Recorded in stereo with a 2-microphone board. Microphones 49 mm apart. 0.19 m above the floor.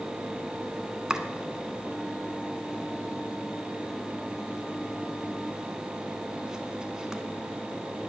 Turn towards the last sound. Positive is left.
turn(degrees=-15)  # may be behind; listen again after turning